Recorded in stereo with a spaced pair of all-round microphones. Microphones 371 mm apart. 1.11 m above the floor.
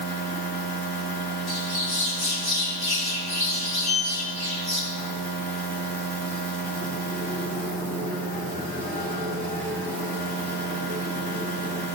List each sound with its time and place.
0.0 s a machine running: 75° right (ahead or behind), 3 m
1.5 s a bird: 80° left, 2 m
3.8 s a sliding door: 15° right (ahead or behind), 3.5 m